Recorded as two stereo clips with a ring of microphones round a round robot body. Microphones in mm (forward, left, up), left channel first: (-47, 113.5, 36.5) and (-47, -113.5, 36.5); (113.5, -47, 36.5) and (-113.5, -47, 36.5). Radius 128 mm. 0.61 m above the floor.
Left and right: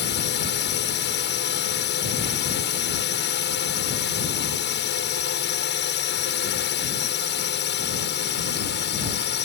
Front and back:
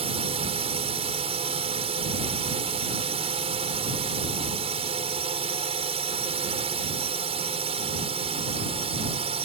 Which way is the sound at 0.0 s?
115° left.